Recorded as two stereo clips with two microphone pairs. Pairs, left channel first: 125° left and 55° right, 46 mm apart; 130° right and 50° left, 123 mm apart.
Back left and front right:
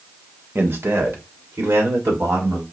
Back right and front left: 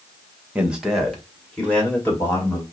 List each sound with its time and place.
0.6 s a man speaking: 25° right, 1.1 m; by 2.6 s 55° right, 3 m